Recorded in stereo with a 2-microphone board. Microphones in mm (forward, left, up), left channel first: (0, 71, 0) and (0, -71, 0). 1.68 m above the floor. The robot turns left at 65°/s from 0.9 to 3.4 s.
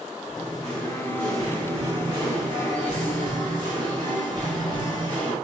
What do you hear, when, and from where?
0.3 s singing: 30° left, 1.6 m; by 5.3 s 130° right, 1.6 m